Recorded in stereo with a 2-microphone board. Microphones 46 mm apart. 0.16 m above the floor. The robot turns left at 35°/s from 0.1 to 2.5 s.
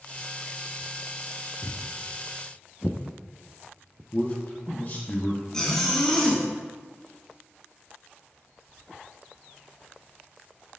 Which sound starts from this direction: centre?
A zipper, at 5.5 s.